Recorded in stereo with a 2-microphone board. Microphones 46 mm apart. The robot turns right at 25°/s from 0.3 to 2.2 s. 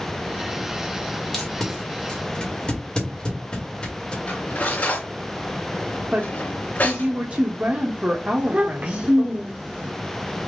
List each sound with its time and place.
1.3 s tape being pulled: 10° left (ahead or behind), 1.8 m; by 4.2 s 25° left (ahead or behind), 1.8 m
4.3 s cutlery clinking: 40° left (ahead or behind), 3 m
6.1 s a woman speaking: 30° right (ahead or behind), 0.8 m
8.4 s a child speaking: 35° right (ahead or behind), 0.9 m